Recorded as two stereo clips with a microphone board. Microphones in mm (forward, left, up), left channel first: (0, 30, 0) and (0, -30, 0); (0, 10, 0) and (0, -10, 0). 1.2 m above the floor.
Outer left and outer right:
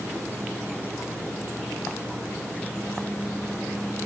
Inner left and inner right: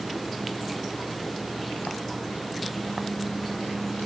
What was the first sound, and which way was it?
Only background noise.